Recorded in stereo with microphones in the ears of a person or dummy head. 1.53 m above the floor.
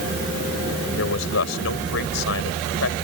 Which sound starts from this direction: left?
A man speaking, at 1.0 s.